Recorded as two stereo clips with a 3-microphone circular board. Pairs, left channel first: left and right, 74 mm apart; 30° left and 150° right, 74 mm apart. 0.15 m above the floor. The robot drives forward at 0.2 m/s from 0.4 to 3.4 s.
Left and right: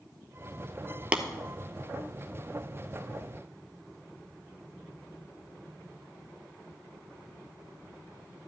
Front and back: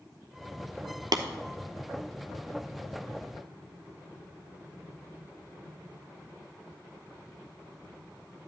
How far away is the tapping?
About 0.7 m.